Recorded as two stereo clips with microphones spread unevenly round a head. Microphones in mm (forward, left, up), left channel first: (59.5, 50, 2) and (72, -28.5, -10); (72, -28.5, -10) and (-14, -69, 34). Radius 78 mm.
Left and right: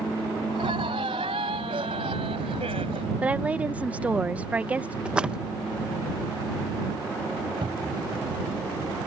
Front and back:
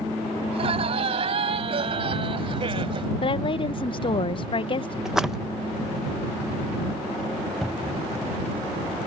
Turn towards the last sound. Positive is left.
turn(degrees=-65)